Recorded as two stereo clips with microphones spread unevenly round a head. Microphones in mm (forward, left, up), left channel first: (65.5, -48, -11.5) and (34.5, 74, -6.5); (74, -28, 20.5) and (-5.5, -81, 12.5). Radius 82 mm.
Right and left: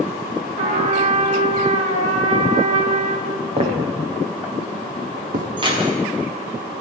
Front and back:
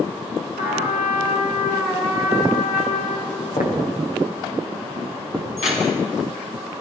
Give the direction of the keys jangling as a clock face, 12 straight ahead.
10 o'clock.